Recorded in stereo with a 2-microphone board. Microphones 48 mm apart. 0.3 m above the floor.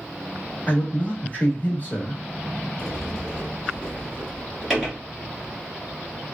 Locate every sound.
0.7 s a man speaking: 35° left (ahead or behind), 1.0 m
2.8 s a sliding door: 5° right (ahead or behind), 1.6 m